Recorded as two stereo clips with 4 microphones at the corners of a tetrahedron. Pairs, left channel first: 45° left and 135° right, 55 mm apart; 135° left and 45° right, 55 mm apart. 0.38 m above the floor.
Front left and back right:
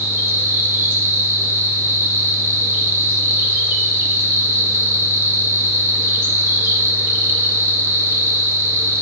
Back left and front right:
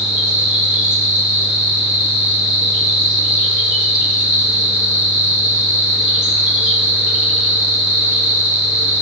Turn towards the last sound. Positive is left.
turn(degrees=-120)